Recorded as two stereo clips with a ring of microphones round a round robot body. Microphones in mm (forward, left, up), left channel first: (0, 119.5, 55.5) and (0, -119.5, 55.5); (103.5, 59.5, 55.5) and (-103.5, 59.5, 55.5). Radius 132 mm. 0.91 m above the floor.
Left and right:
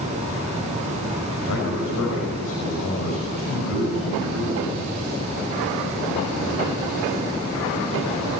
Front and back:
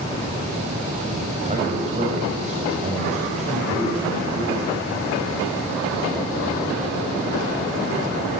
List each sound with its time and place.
1.4 s a man speaking: 125° left, 5.5 m